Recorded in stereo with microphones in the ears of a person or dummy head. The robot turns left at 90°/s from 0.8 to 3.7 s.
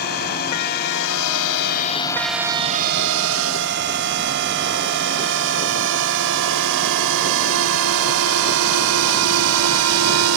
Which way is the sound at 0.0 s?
50° left (ahead or behind).